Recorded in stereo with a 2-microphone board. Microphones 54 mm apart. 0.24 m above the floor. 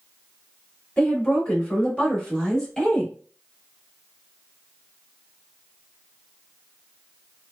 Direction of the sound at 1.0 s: 25° left (ahead or behind).